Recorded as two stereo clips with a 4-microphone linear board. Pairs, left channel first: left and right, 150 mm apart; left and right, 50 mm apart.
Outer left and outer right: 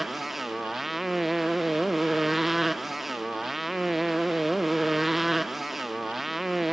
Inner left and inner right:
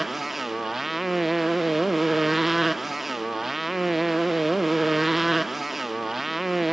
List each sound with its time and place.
0.0 s a motorcycle: centre (ahead or behind)